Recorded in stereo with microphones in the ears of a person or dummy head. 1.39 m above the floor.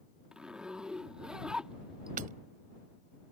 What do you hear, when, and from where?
0.3 s a zipper: centre (ahead or behind)
2.2 s hammering: 50° right (ahead or behind)